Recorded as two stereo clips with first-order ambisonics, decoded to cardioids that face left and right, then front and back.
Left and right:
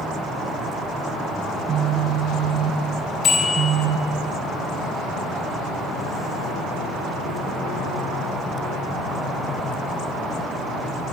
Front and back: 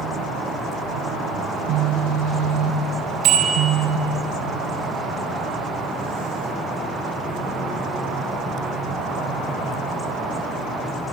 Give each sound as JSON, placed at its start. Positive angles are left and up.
{"t": 1.5, "sound": "a phone buzzing", "azimuth_deg": -150, "distance_m": 2.0}
{"t": 3.2, "sound": "a bicycle bell", "azimuth_deg": 145, "distance_m": 6.5}